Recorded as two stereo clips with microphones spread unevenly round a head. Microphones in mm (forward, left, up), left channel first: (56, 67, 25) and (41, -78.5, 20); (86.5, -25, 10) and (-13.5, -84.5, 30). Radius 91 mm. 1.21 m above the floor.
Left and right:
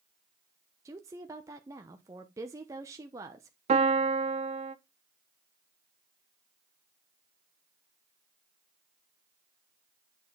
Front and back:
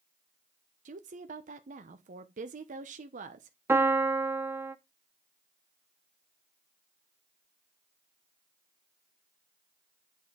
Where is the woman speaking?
165° right, 0.7 m.